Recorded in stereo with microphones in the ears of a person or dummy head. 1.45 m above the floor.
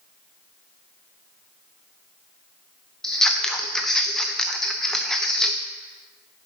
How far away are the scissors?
About 0.5 m.